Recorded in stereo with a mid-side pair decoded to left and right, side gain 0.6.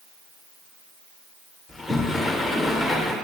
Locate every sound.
1.7 s a sliding door: 10° left, 1.2 m